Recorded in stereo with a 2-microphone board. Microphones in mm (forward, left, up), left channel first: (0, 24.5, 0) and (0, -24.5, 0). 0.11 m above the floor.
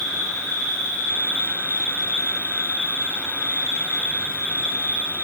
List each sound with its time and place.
0.0 s an insect: 70° left (ahead or behind), 2 m